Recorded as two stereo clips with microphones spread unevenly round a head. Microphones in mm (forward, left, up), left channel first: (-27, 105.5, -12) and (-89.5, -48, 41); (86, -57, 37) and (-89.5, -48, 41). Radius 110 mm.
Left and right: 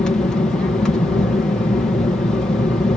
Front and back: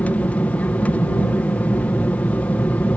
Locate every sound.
0.0 s an aircraft: 65° left